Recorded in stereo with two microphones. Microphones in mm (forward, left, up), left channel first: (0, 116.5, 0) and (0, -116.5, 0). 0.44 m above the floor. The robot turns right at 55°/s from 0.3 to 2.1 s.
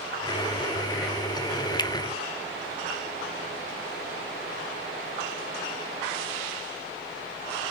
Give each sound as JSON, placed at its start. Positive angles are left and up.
{"t": 1.8, "sound": "a finger snap", "side_deg": 20, "distance_m": 0.6}